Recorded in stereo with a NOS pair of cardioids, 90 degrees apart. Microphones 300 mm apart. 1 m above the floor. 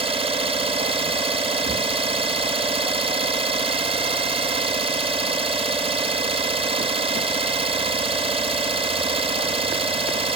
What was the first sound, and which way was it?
An engine running, 20° right.